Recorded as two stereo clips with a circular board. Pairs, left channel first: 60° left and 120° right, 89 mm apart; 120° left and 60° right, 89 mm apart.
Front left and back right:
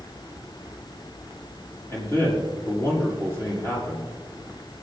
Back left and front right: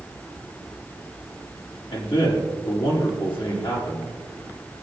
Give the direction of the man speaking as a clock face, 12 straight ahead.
8 o'clock.